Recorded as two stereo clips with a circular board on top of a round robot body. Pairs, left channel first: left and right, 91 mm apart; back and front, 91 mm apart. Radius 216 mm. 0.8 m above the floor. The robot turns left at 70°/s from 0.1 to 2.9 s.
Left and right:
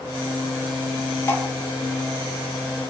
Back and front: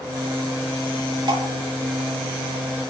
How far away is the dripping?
About 3 m.